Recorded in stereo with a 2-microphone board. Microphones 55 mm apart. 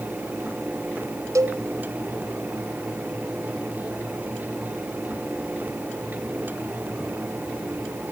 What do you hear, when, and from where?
1.4 s a cowbell: 80° right, 1.0 m